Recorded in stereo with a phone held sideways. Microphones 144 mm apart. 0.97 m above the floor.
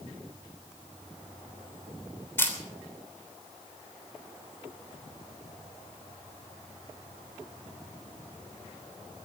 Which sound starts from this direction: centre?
A camera shutter, at 2.4 s.